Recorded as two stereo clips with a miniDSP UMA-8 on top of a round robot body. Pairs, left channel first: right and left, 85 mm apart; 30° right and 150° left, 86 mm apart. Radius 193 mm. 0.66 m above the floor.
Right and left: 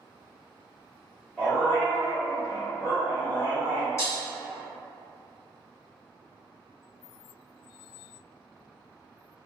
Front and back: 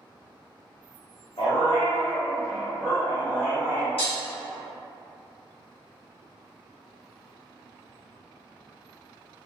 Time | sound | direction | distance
1.4 | a dog barking | 10° right | 0.8 m
4.0 | breaking glass | 35° right | 1.1 m